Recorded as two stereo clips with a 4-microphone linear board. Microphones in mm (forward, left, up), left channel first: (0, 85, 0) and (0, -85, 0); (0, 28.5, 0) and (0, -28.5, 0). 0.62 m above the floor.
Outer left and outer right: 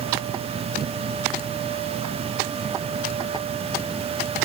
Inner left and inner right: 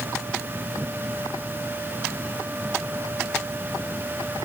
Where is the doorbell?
I don't hear a doorbell.